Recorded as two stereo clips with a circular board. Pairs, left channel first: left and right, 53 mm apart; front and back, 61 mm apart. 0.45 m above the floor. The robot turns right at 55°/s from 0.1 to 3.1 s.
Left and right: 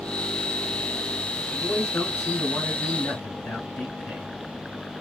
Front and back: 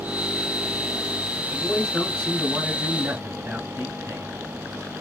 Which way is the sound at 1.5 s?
45° left.